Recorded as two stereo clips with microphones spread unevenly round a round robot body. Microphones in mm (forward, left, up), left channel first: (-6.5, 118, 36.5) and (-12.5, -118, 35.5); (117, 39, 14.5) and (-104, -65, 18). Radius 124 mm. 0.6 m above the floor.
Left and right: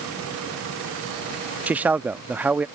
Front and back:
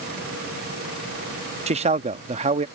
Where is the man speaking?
165° right.